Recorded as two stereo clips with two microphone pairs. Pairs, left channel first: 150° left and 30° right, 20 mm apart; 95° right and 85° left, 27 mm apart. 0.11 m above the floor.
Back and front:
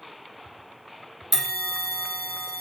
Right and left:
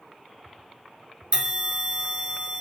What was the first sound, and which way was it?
A bell, 75° left.